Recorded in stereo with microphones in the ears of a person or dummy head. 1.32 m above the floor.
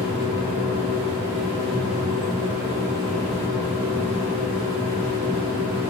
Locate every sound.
0.0 s a machine running: 25° left (ahead or behind), 8 m